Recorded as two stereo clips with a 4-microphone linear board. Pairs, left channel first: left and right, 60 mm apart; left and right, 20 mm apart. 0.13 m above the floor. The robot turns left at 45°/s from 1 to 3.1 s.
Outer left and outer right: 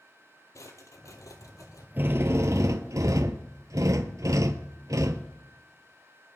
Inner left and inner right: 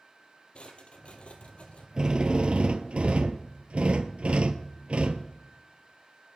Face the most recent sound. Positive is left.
turn(degrees=-90)